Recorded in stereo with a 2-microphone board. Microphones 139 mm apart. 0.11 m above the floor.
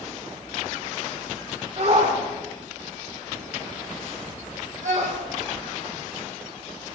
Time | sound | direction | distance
1.8 | a shout | 50° right (ahead or behind) | 6.5 m